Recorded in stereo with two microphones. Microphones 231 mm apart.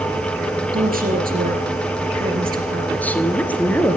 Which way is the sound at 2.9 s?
5° left (ahead or behind).